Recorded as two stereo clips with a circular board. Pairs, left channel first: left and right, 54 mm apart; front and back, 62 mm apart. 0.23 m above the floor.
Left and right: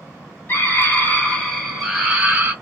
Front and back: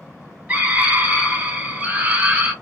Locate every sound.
0.5 s a scream: 120° left, 1.5 m; by 2.5 s 130° right, 1.2 m